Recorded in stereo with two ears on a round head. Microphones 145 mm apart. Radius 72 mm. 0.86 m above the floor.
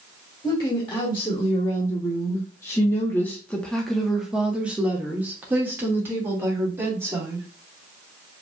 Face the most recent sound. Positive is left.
turn(degrees=-15)  # may be behind; listen again after turning